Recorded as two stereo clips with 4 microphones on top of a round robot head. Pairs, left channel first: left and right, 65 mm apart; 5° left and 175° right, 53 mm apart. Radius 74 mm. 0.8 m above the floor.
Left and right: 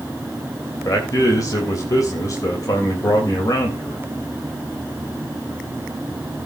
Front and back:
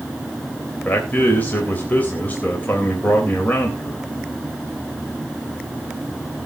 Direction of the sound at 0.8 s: 60° left.